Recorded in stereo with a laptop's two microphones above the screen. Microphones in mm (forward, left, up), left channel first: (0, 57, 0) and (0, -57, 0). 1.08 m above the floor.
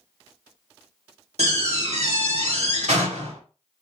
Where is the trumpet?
I don't hear a trumpet.